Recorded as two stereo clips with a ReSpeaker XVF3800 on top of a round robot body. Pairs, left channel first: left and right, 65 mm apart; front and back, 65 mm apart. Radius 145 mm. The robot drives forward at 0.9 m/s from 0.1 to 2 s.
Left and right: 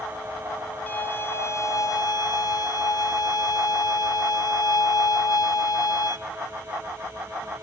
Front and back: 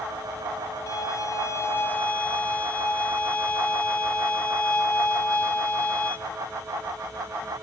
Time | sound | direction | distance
0.9 | a violin | 30° left | 1.4 m